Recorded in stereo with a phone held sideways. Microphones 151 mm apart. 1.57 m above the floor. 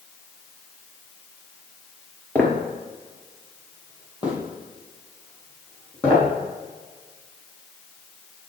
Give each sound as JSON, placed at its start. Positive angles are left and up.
{"t": 2.4, "sound": "footsteps", "side_deg": 10, "distance_m": 1.7}